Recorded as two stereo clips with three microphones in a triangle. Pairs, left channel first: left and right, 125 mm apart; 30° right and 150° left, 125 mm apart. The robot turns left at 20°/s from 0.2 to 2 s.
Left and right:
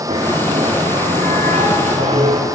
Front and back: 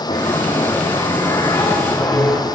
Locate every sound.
0.1 s a bell: 60° right, 4.5 m; by 2.4 s 100° right, 4.5 m